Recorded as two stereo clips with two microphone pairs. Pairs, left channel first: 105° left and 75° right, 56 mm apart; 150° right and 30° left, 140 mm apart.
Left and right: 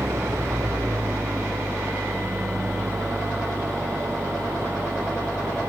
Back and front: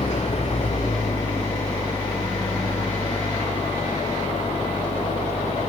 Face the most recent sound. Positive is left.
turn(degrees=-105)